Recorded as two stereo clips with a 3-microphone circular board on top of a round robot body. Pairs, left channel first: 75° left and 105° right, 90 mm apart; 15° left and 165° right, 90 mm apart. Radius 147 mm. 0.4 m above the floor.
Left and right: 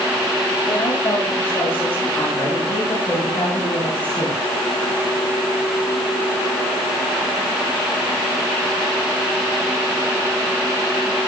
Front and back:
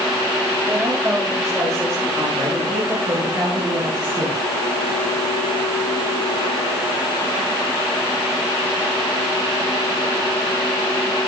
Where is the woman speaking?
135° left, 9.5 m; by 4.4 s 150° left, 9 m.